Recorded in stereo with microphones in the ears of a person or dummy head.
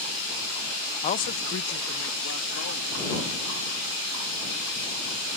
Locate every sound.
1.0 s a man speaking: 30° left (ahead or behind); by 3.8 s 90° left